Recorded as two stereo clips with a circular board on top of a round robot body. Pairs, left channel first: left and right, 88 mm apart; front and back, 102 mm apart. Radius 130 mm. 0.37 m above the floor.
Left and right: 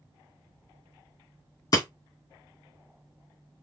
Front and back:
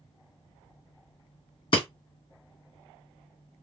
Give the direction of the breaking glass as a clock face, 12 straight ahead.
11 o'clock.